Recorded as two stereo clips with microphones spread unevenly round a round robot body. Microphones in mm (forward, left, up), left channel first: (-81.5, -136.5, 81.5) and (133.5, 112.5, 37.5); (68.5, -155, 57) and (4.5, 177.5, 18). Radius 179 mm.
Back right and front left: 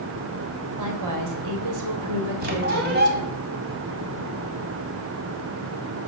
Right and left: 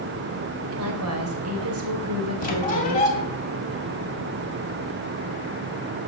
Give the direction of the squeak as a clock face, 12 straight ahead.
12 o'clock.